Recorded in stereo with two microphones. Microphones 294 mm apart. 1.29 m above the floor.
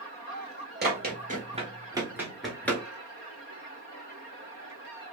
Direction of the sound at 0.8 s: 35° right (ahead or behind).